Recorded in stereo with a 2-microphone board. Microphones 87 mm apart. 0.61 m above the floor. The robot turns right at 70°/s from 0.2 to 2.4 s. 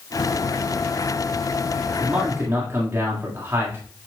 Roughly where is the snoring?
I don't hear snoring.